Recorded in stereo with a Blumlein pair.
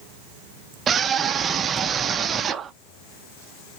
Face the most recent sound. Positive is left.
turn(degrees=-20)